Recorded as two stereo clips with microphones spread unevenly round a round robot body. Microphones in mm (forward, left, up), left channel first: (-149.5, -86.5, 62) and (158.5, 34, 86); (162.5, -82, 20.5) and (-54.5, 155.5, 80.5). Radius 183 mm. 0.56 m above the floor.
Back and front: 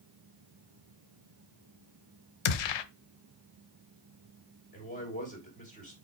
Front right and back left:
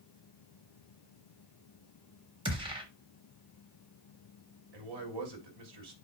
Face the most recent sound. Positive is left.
turn(degrees=135)